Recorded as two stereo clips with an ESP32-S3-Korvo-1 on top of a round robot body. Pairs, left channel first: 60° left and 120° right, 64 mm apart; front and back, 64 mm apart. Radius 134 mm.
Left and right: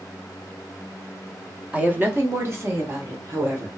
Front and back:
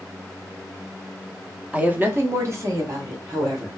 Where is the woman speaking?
145° right, 0.8 m; by 3.7 s 160° right, 1.6 m.